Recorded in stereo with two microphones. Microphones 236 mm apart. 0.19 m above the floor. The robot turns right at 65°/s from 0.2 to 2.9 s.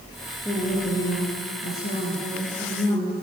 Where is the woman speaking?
15° left, 3.5 m; by 3.1 s 170° left, 3.5 m.